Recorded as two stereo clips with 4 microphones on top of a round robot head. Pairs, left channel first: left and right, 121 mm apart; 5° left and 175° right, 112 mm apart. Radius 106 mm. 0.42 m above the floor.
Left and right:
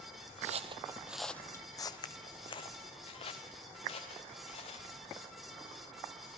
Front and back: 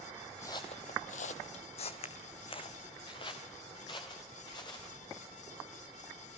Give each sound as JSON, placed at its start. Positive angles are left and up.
{"t": 0.4, "sound": "footsteps", "azimuth_deg": -70, "distance_m": 0.9}